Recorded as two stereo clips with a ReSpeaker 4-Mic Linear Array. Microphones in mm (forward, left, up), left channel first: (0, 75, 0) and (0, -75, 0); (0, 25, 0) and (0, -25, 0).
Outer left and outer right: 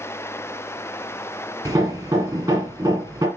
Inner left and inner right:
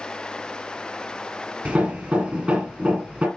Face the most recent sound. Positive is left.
turn(degrees=-20)  # may be behind; listen again after turning